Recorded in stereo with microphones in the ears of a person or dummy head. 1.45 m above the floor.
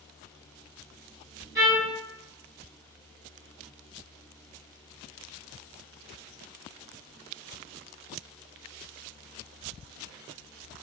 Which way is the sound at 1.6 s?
15° right (ahead or behind).